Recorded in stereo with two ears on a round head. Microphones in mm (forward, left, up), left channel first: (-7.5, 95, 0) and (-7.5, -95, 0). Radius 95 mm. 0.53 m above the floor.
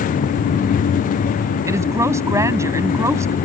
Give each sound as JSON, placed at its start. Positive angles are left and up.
{"t": 1.7, "sound": "a woman speaking", "side_deg": -15}